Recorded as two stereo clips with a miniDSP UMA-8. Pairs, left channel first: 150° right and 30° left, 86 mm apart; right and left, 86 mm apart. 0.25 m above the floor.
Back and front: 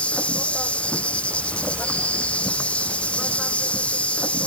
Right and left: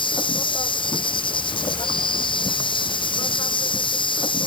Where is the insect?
75° right.